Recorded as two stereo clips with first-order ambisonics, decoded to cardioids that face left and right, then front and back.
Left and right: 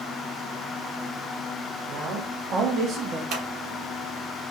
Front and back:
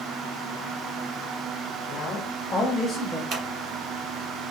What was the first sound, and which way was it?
A man speaking, 45° right.